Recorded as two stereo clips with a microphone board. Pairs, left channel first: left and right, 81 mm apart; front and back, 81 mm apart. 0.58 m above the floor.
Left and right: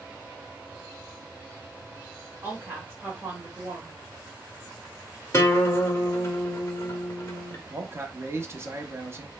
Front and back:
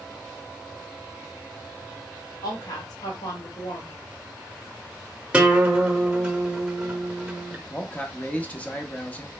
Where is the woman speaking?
25° right, 1.8 m.